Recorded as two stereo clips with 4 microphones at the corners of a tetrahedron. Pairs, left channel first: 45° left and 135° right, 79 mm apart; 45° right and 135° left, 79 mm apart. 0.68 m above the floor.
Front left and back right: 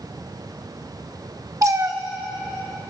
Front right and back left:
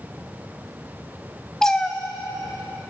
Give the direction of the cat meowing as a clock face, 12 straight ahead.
4 o'clock.